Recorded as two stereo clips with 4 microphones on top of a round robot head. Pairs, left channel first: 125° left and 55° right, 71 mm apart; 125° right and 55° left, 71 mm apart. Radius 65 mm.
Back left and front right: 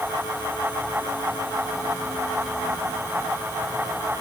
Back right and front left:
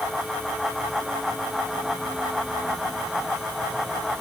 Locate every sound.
Only background noise.